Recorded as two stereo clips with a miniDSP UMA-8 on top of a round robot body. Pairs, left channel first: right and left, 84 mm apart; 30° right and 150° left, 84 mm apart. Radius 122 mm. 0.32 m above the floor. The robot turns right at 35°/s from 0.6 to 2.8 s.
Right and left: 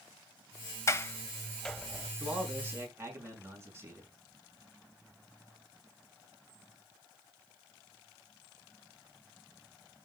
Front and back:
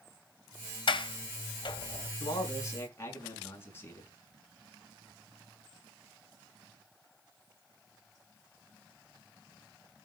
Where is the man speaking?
10° left, 5.5 m; by 4.1 s 30° left, 5.5 m.